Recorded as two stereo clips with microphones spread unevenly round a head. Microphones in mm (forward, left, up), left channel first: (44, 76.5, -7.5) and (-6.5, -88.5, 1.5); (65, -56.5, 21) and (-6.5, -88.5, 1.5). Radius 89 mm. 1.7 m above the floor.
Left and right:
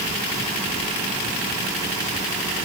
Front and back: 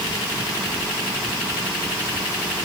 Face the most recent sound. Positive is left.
No sound to turn to.